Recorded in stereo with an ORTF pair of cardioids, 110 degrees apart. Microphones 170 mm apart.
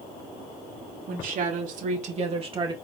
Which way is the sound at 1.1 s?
55° right.